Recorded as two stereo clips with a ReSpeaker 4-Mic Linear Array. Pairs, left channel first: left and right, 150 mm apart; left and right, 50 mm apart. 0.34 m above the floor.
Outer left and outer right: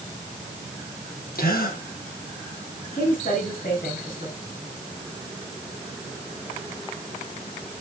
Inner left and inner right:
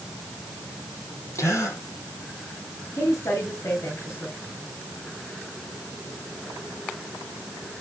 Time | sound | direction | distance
1.4 | a gasp | 85° left | 3.5 m
2.9 | a woman speaking | 70° left (ahead or behind) | 4 m